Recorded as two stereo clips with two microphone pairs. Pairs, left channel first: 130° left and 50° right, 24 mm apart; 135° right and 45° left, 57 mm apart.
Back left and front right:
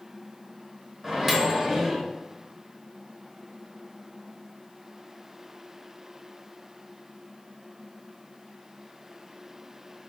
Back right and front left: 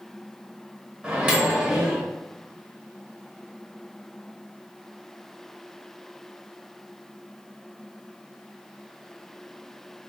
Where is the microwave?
Straight ahead, 0.9 m.